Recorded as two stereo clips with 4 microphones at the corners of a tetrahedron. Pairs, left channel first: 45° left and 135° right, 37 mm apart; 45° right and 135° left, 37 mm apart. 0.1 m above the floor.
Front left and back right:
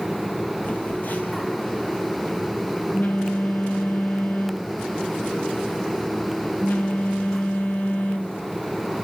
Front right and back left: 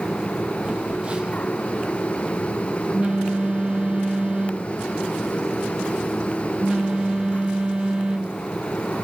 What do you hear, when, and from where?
0.6 s a phone buzzing: 75° left, 1.2 m